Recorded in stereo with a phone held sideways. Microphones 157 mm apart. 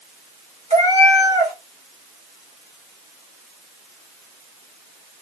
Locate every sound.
0.7 s a cat meowing: 45° right (ahead or behind), 2 m